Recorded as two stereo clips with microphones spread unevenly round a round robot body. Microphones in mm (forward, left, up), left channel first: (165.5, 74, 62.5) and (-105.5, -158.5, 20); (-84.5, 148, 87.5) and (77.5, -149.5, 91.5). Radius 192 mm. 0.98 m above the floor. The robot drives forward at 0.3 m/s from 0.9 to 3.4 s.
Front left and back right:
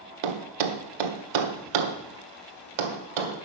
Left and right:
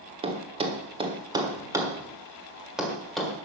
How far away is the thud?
About 1.2 m.